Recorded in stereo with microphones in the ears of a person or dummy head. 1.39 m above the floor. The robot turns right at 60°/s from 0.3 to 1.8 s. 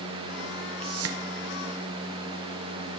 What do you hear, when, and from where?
0.8 s a whoosh: 65° right (ahead or behind), 1.1 m; by 1.2 s 70° right (ahead or behind), 1.1 m